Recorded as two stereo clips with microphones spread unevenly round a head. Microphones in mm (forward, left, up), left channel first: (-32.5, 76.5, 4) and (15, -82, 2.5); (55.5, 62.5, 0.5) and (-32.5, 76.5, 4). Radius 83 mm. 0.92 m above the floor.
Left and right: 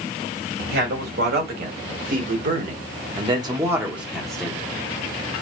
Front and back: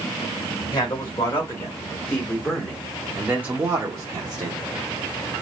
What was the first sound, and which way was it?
A man speaking, 65° right.